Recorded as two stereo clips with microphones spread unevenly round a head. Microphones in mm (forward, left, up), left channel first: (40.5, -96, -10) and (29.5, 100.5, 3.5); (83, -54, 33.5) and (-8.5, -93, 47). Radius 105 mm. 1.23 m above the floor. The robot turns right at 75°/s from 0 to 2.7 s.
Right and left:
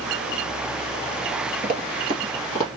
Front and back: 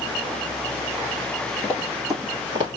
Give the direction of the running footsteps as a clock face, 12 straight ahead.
9 o'clock.